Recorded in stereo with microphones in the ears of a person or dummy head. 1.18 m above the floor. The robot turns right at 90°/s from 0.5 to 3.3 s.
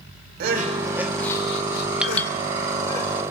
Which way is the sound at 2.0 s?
5° right (ahead or behind).